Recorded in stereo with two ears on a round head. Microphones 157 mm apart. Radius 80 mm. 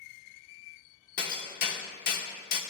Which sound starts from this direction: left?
Hammering, at 1.2 s.